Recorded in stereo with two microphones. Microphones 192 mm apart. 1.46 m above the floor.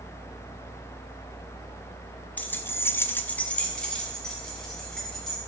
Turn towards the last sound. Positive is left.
turn(degrees=5)  # may be behind; listen again after turning